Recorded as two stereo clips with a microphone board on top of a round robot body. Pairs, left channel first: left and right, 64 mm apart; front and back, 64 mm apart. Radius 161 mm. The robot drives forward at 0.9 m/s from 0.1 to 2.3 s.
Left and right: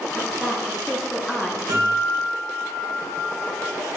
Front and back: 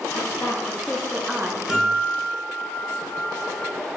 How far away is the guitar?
About 1.8 m.